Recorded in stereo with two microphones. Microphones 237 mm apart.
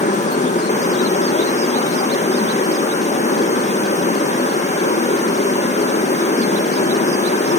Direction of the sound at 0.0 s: 30° left (ahead or behind).